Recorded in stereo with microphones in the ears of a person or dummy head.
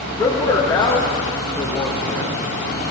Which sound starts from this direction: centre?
A man speaking, at 0.2 s.